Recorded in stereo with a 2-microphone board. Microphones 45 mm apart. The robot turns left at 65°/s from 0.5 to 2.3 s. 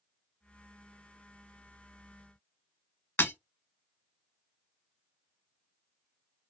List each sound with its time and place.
3.2 s breaking glass: 55° left (ahead or behind), 1.3 m